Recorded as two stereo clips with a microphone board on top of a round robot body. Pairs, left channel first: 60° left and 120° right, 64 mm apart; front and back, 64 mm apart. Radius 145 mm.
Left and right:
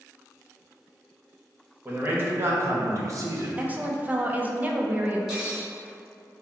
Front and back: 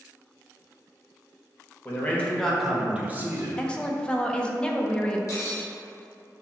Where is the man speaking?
60° right, 1.2 m; by 3.5 s 140° right, 0.9 m.